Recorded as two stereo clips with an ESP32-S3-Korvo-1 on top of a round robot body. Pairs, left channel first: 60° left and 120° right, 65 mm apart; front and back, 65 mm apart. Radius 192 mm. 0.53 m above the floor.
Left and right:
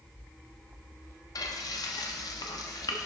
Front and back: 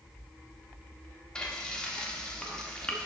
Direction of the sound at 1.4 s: 75° left.